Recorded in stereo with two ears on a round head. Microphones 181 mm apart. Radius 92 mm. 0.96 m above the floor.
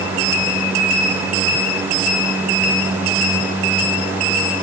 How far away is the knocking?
I don't hear knocking.